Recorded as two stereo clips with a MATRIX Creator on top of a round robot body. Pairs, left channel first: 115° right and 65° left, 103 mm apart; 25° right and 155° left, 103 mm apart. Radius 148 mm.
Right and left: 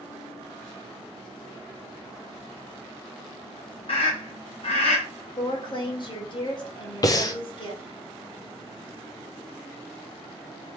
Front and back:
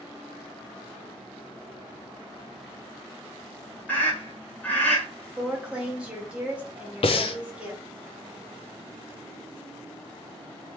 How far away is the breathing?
About 0.6 m.